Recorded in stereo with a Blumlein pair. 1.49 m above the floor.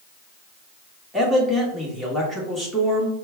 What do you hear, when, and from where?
1.1 s a man speaking: 5° left, 1.8 m